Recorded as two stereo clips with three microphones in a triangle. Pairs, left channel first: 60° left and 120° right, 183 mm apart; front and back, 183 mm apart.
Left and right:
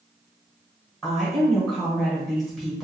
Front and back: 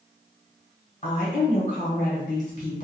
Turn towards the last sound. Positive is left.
turn(degrees=-30)